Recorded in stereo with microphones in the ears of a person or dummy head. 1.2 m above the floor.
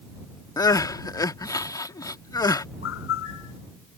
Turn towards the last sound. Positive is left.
turn(degrees=80)